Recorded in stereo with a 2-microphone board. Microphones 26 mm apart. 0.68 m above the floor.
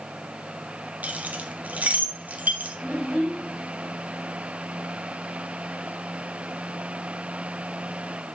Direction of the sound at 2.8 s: 75° left (ahead or behind).